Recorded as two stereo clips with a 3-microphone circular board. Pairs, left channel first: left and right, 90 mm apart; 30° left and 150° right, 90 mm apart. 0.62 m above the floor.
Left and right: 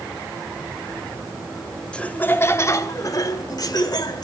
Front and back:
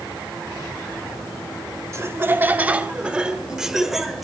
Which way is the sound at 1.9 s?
165° left.